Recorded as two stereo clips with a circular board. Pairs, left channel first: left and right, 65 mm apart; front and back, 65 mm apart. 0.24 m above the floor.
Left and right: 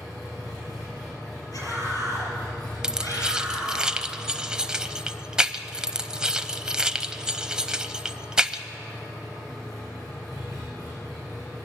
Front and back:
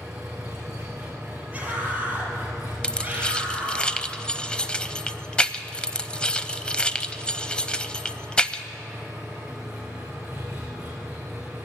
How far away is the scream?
About 6 m.